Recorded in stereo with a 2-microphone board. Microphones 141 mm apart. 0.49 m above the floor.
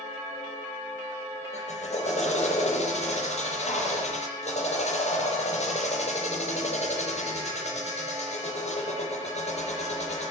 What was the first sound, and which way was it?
A drill, 60° left (ahead or behind).